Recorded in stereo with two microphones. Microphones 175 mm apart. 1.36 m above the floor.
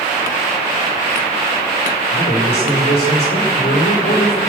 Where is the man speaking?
80° left, 5 m.